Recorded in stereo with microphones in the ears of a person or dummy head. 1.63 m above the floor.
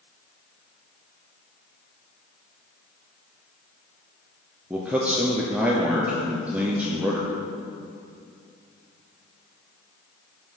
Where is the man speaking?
5° right (ahead or behind), 0.8 m.